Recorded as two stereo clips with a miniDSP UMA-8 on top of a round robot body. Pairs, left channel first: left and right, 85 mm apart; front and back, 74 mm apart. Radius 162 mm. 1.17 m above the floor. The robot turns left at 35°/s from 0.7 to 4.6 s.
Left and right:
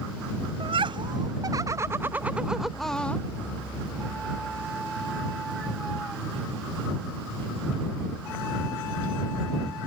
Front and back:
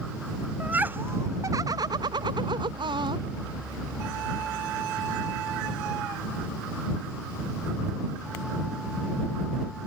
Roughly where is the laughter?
Right.